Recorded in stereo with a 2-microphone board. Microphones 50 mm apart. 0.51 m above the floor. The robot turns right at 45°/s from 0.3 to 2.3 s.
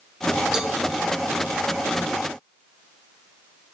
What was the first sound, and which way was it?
A cowbell, 15° right (ahead or behind).